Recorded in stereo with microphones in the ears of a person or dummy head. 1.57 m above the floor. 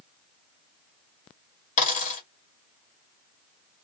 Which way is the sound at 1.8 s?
40° left (ahead or behind).